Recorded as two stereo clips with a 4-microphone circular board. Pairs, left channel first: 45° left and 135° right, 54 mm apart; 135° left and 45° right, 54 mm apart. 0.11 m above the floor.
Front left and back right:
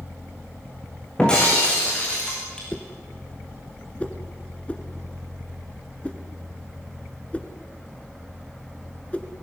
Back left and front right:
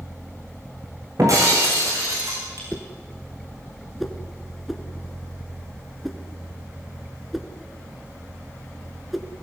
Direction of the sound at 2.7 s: 40° left.